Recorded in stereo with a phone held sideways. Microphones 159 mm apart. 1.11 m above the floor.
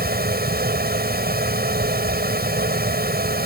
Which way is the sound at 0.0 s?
70° right (ahead or behind).